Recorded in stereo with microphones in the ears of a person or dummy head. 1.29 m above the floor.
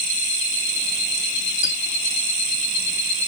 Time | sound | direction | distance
1.6 | a squeak | 30° right (ahead or behind) | 0.7 m